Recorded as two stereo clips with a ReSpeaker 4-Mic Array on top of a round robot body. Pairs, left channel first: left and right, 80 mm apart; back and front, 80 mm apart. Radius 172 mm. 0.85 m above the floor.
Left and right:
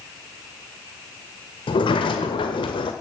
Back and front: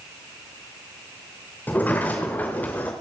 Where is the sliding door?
110° left, 0.8 m.